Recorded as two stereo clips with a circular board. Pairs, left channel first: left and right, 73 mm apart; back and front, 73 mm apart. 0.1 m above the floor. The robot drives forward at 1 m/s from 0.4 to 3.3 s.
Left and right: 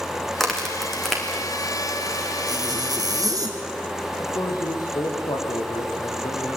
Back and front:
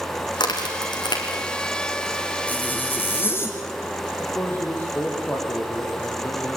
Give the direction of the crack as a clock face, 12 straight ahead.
6 o'clock.